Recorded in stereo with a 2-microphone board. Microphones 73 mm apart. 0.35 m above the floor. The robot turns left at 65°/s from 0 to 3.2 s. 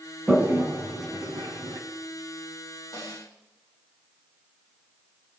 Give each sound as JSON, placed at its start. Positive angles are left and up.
{"t": 0.3, "sound": "a toilet flushing", "side_deg": -10, "distance_m": 2.0}
{"t": 2.9, "sound": "a snare drum", "side_deg": 50, "distance_m": 3.5}